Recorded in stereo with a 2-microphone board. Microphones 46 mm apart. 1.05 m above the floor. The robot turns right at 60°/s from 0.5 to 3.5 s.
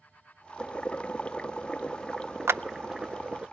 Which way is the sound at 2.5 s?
70° right (ahead or behind).